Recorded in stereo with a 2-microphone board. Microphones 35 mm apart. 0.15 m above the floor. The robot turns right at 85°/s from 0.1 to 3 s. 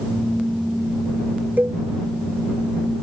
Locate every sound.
1.6 s a cowbell: 60° right (ahead or behind); by 1.8 s 45° right (ahead or behind)